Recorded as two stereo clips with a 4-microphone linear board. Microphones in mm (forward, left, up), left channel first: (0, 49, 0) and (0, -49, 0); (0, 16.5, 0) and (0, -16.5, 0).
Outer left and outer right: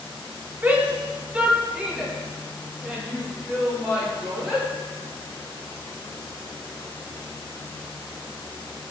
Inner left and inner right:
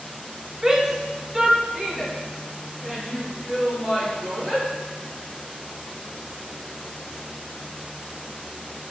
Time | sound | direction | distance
0.6 | a shout | 20° right (ahead or behind) | 1.1 m